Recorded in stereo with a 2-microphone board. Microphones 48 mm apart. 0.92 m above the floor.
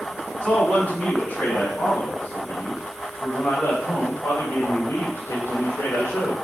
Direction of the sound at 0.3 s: 25° left (ahead or behind).